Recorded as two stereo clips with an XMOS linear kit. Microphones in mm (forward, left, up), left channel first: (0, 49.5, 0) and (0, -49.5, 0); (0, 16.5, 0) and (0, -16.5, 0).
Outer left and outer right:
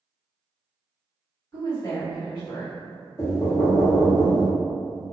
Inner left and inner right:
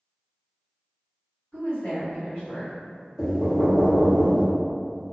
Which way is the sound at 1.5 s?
35° left (ahead or behind).